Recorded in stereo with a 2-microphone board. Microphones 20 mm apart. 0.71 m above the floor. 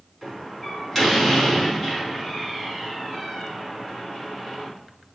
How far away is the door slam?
About 4.5 m.